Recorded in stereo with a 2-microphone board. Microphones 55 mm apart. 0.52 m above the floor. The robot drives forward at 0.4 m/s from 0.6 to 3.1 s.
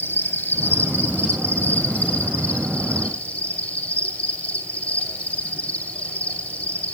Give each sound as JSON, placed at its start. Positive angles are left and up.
{"t": 0.0, "sound": "an insect", "side_deg": 40, "distance_m": 1.5}